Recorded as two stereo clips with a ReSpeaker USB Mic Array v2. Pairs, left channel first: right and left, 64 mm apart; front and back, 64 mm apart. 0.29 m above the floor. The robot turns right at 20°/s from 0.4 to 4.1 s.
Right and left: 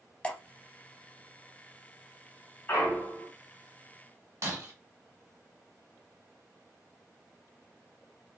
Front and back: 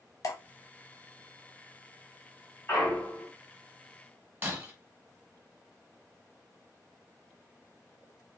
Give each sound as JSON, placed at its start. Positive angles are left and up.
{"t": 0.2, "sound": "dripping", "azimuth_deg": -20, "distance_m": 0.6}
{"t": 2.7, "sound": "a clunk", "azimuth_deg": -40, "distance_m": 1.6}
{"t": 4.4, "sound": "breaking glass", "azimuth_deg": 120, "distance_m": 1.1}